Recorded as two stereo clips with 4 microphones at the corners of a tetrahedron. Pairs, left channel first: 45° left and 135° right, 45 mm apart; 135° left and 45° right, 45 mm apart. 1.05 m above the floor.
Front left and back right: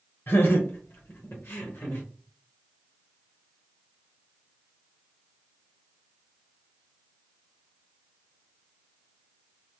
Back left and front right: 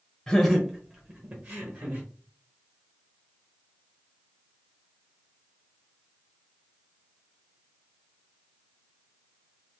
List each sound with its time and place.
0.3 s laughter: 60° left, 0.7 m; by 2.0 s 15° right, 1.4 m